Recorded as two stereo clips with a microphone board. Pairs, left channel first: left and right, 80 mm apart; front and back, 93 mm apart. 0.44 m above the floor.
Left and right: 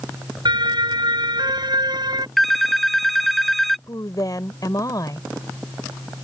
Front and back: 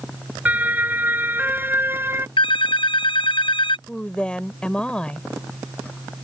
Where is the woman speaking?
75° left.